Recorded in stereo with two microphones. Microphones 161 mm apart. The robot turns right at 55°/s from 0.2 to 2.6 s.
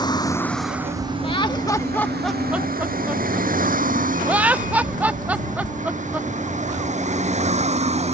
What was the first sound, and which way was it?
A vehicle, 25° left (ahead or behind).